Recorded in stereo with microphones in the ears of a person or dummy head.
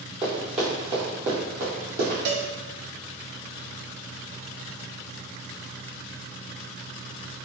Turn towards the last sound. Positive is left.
turn(degrees=-65)  # may be behind; listen again after turning